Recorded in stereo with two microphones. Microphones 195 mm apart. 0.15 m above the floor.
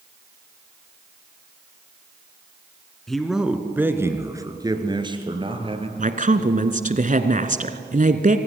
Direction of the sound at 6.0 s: 45° right (ahead or behind).